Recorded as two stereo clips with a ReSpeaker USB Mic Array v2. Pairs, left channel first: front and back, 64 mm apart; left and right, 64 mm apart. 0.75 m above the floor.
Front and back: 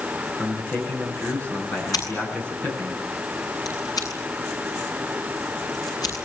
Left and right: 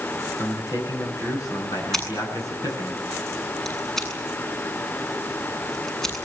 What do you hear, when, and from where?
0.4 s a man speaking: 65° left, 8 m
1.9 s scissors: 5° left, 8 m